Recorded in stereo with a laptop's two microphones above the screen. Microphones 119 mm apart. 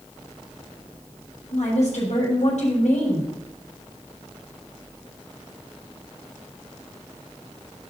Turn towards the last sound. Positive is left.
turn(degrees=85)